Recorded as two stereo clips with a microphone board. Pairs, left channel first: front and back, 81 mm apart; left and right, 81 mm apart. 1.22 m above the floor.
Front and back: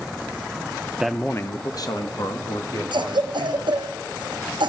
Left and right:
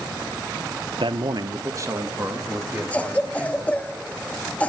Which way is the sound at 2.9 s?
165° left.